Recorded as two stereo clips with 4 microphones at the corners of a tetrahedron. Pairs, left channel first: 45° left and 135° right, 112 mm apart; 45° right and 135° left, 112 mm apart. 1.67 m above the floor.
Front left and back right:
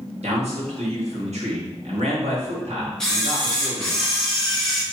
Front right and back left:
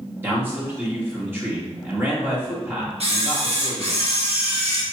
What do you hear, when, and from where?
0.2 s a man speaking: 150° right, 1.8 m
3.0 s a camera shutter: 130° left, 1.2 m